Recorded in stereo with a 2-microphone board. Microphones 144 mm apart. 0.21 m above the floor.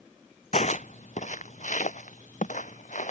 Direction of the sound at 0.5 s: 55° left (ahead or behind).